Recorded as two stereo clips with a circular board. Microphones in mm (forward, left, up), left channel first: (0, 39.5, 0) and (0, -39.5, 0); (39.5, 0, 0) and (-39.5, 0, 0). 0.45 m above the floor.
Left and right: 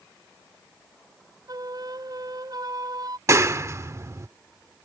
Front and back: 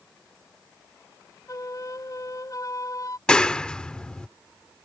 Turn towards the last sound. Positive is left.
turn(degrees=-75)